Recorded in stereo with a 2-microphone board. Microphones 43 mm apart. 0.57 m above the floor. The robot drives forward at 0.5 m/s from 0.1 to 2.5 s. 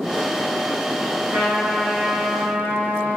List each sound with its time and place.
1.3 s a trumpet: 55° right (ahead or behind), 2.5 m; by 3.2 s 70° right (ahead or behind), 2 m